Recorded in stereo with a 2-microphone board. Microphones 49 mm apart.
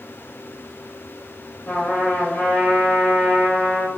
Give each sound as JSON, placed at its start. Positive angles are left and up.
{"t": 1.7, "sound": "a trumpet", "side_deg": 30, "distance_m": 1.2}